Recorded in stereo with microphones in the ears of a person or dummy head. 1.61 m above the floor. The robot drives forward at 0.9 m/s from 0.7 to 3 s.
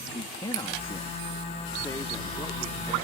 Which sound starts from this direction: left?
A man speaking, at 0.1 s.